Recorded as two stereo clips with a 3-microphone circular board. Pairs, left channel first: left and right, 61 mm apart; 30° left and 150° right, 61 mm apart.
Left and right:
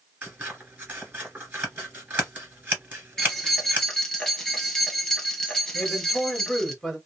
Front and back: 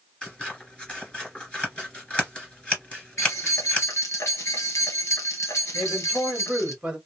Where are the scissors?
40° right, 2 m.